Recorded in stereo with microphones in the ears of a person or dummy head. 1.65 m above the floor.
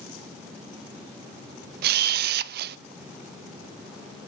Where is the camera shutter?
55° right (ahead or behind), 0.7 m.